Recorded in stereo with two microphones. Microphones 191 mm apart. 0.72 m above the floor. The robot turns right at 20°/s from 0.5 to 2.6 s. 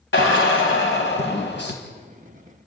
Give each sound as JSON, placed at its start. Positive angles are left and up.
{"t": 0.1, "sound": "a drill", "side_deg": 85, "distance_m": 4.0}